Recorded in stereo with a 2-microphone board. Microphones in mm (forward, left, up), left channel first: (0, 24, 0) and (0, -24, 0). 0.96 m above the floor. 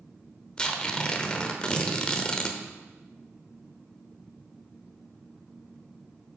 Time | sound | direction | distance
0.6 | tearing paper | 20° left (ahead or behind) | 0.8 m